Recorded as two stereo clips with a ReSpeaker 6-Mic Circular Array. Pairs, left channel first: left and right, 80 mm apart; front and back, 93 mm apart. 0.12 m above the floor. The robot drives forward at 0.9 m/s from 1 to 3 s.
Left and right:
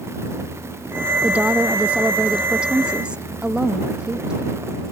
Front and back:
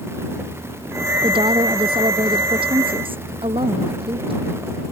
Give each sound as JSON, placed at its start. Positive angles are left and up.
{"t": 1.2, "sound": "a woman speaking", "azimuth_deg": -160}